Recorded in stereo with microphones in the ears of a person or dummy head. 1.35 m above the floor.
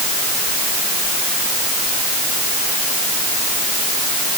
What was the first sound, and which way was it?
Only background noise.